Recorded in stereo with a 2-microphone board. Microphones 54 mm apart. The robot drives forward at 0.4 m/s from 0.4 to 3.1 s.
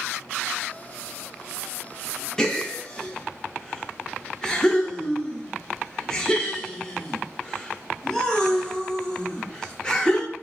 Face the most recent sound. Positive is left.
turn(degrees=15)  # may be behind; listen again after turning